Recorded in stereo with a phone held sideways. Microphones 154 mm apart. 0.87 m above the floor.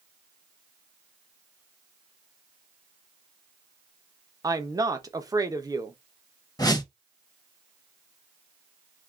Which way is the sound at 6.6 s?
25° left (ahead or behind).